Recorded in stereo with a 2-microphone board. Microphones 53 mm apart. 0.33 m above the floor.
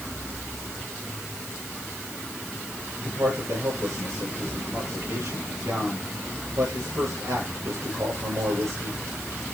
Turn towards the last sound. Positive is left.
turn(degrees=-65)  # may be behind; listen again after turning